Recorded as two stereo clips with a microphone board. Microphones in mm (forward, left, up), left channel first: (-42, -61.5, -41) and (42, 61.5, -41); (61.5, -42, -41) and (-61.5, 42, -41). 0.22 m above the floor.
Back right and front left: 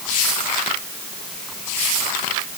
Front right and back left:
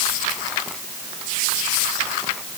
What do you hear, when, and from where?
Only background noise.